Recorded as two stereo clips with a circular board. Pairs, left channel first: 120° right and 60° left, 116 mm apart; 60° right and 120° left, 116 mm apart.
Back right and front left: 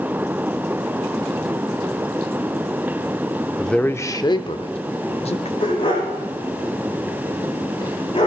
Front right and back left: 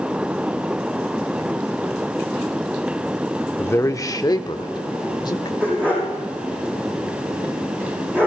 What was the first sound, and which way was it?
A man speaking, 30° right.